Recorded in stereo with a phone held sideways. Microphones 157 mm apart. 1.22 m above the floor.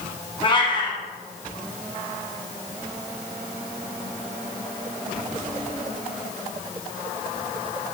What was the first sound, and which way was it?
A cat meowing, 35° left (ahead or behind).